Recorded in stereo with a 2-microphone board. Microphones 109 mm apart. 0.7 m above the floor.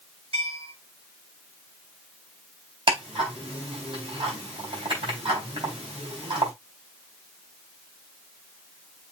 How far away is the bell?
About 5 m.